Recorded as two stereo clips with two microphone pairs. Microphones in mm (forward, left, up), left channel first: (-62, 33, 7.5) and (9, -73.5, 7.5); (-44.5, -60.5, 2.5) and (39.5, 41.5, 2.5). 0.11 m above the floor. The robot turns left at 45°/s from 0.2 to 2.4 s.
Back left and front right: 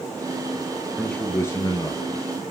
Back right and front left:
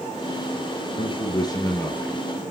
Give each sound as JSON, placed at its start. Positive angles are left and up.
{"t": 1.0, "sound": "a man speaking", "azimuth_deg": -155, "distance_m": 1.7}